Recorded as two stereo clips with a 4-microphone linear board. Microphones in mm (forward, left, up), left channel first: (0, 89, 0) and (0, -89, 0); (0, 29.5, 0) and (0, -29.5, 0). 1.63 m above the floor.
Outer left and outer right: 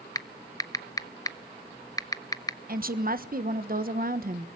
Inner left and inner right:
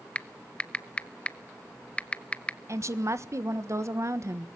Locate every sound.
0.1 s typing on a keyboard: 20° left (ahead or behind), 0.8 m
2.7 s a woman speaking: 55° right (ahead or behind), 1.3 m